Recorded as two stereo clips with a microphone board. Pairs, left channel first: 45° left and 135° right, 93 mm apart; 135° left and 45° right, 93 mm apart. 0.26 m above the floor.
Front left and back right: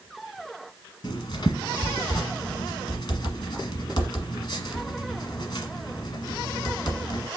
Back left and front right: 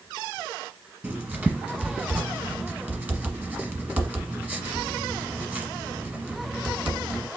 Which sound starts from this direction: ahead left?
Writing, at 1.0 s.